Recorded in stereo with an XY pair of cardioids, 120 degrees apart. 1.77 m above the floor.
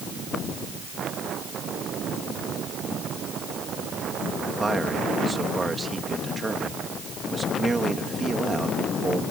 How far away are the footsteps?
I don't hear footsteps.